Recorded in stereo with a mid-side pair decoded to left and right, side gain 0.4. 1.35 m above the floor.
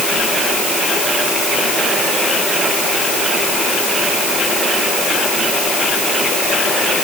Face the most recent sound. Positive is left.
No sound to turn to.